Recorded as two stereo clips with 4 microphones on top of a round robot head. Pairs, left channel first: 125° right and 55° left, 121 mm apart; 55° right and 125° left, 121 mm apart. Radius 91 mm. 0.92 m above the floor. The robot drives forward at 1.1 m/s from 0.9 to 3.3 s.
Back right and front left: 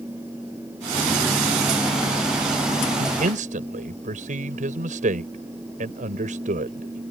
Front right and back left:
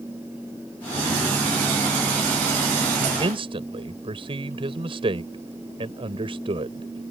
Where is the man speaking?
75° left; by 7.0 s 80° left.